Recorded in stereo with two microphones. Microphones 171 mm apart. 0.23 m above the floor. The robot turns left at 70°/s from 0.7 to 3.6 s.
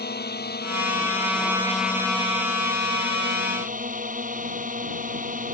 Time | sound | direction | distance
0.0 | a drone | 75° left | ?